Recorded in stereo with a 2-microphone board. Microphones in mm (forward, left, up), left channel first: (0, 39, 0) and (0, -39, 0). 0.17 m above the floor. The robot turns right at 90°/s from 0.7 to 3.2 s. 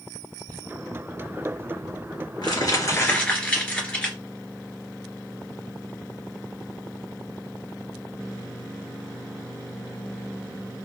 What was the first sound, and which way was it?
Crumpling, 55° right (ahead or behind).